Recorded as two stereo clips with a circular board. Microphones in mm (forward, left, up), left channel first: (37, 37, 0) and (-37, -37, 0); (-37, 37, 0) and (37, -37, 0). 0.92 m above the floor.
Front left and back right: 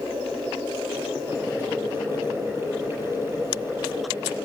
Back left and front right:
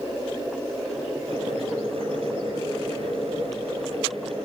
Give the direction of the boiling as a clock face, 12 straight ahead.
2 o'clock.